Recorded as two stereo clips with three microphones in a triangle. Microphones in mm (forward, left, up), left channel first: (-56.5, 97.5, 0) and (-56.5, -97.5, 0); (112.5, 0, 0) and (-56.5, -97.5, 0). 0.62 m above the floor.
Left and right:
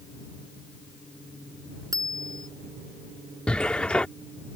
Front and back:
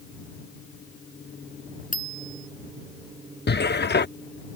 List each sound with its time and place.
1.9 s a bicycle bell: 20° right
3.5 s a cupboard door: 5° left